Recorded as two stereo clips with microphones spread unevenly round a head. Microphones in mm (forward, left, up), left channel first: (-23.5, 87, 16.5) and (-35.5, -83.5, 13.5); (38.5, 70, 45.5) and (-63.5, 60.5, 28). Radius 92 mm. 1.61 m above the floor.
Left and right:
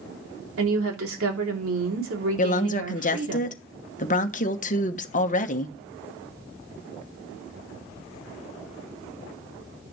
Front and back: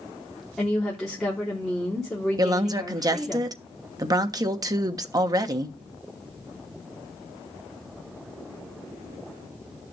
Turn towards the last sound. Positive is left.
turn(degrees=130)